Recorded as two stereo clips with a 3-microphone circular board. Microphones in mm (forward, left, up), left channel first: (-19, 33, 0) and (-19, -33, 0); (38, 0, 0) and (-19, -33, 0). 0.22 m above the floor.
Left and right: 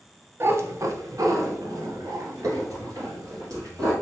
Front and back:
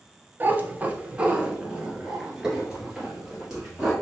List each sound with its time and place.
0.4 s a cat meowing: 110° right, 0.6 m; by 3.9 s 65° right, 2.5 m